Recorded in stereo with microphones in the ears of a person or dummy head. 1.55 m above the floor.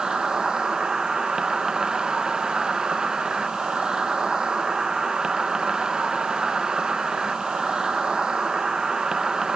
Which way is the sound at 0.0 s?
10° right (ahead or behind).